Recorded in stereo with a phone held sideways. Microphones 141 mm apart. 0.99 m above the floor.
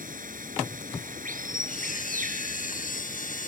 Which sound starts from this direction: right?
Running water, at 0.0 s.